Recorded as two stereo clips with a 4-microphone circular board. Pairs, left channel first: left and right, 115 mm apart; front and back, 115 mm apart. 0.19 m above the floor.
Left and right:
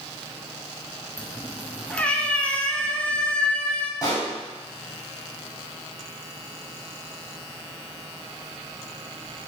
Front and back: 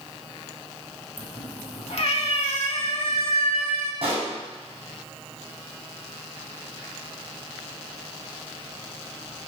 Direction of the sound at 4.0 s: 150° left.